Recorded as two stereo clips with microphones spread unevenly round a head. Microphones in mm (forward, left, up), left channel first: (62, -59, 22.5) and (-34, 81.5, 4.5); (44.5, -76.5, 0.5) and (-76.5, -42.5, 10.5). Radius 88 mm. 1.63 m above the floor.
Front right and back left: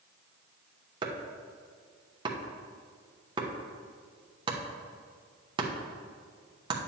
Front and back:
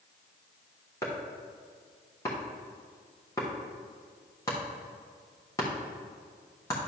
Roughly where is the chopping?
Ahead left.